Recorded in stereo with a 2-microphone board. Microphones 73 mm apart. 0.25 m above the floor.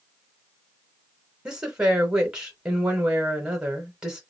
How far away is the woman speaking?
About 0.9 m.